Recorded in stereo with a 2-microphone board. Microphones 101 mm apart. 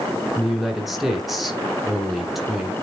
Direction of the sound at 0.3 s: 5° right (ahead or behind).